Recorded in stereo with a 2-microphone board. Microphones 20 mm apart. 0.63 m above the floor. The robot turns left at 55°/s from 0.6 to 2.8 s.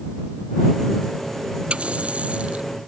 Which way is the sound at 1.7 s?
60° right.